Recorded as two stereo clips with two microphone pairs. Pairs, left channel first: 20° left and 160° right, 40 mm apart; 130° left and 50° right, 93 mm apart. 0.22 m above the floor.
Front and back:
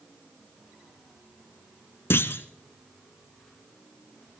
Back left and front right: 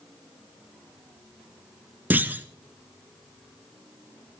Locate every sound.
2.1 s a clunk: 20° left, 0.8 m